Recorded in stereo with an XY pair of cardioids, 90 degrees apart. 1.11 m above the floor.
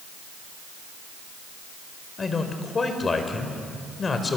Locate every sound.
2.2 s a man speaking: 40° left, 4.5 m